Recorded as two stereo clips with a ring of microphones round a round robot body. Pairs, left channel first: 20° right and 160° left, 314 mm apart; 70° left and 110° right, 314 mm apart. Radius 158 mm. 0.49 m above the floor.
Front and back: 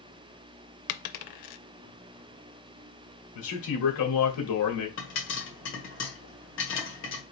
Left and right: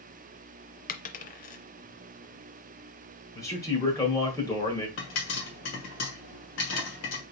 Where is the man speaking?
10° right, 1.9 m.